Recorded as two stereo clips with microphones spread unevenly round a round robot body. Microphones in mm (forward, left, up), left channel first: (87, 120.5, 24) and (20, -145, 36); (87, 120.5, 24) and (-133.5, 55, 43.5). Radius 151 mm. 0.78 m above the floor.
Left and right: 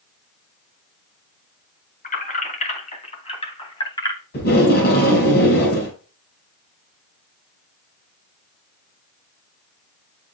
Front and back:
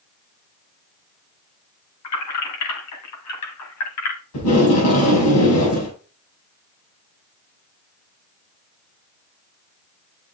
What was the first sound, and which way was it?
Keys jangling, 15° left.